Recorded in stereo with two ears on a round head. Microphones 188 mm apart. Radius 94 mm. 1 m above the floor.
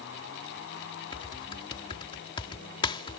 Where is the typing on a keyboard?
25° left (ahead or behind).